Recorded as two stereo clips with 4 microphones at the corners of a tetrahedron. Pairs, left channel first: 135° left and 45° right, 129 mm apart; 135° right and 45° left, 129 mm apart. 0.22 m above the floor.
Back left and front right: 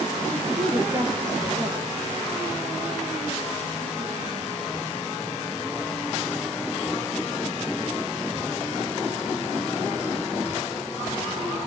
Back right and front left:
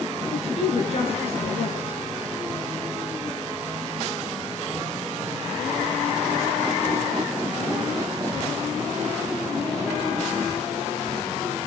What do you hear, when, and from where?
0.3 s a woman speaking: 105° right, 3.5 m